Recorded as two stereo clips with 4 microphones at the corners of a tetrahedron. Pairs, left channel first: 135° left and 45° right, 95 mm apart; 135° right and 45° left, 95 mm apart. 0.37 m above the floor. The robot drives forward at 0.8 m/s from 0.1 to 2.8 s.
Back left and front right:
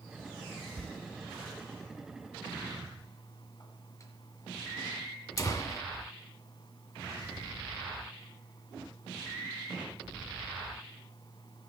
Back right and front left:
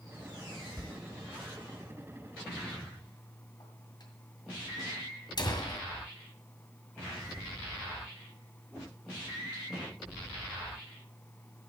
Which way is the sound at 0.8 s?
140° right.